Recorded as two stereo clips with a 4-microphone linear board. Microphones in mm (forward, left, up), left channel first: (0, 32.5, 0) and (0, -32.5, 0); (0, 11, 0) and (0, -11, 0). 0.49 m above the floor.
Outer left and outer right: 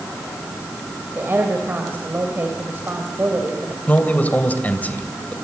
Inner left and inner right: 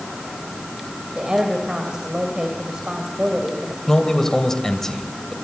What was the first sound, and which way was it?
A woman speaking, 35° right (ahead or behind).